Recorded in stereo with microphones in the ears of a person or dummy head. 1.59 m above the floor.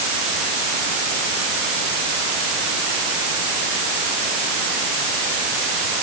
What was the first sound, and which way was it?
Only background noise.